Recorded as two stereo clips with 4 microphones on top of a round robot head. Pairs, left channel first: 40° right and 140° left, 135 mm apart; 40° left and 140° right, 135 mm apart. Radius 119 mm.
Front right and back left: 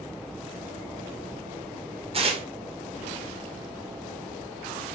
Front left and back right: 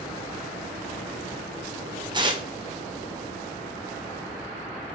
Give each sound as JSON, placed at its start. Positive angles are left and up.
{"t": 2.1, "sound": "tearing paper", "azimuth_deg": 170, "distance_m": 1.9}